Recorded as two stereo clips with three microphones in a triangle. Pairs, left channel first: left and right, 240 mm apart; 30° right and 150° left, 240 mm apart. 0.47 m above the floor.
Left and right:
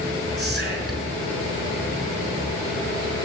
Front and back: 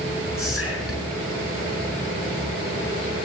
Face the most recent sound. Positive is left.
turn(degrees=-45)